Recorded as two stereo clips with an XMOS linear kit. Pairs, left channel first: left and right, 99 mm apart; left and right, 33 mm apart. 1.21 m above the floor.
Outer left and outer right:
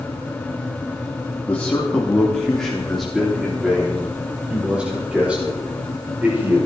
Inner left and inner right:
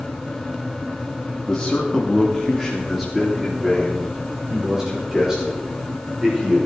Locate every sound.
1.5 s a man speaking: 15° left (ahead or behind), 2.5 m; by 6.7 s 20° right (ahead or behind), 6 m